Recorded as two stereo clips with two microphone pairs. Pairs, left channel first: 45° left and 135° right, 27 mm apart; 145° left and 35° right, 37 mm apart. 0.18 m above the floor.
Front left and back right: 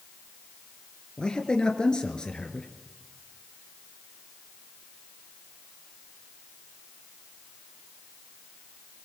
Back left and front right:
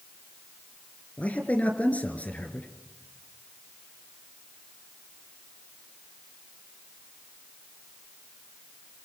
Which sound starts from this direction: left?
A man speaking, at 1.2 s.